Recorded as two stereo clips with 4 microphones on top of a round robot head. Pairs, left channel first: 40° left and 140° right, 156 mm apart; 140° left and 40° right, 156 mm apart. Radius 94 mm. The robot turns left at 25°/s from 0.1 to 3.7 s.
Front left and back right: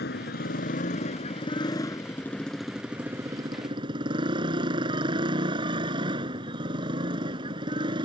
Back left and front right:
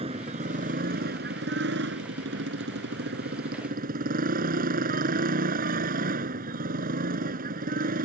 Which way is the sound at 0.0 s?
15° left.